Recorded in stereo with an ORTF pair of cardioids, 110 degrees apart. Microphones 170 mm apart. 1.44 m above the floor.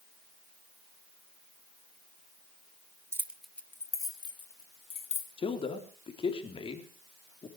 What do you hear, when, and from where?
3.1 s keys jangling: 15° right, 1.1 m; by 5.3 s 40° left, 2.5 m
5.4 s a man speaking: 30° left, 3.5 m